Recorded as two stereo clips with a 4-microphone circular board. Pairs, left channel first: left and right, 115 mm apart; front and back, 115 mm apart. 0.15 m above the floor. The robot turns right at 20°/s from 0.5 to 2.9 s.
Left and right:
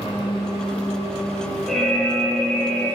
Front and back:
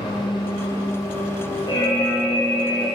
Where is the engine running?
50° left, 2 m; by 3.0 s 95° left, 2 m.